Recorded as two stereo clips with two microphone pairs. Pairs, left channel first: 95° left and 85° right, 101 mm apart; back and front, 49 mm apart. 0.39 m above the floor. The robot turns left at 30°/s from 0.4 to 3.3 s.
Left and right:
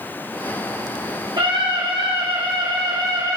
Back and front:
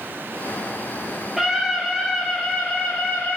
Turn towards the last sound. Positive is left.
turn(degrees=-130)